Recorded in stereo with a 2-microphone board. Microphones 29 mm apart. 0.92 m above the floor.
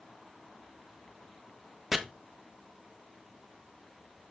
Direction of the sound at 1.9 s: 5° right (ahead or behind).